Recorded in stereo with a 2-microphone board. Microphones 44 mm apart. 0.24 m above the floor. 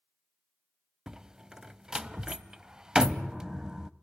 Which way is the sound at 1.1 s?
15° right (ahead or behind).